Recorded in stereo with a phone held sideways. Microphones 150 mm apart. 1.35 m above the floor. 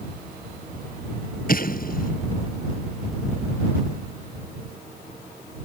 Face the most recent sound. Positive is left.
turn(degrees=65)  # may be behind; listen again after turning